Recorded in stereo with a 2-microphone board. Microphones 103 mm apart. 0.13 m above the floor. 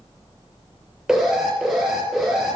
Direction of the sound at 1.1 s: 5° right (ahead or behind).